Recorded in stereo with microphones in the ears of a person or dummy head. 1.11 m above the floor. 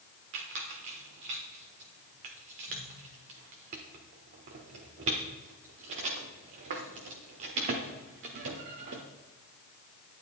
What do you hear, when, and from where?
0.3 s a squeak: 35° right (ahead or behind), 0.9 m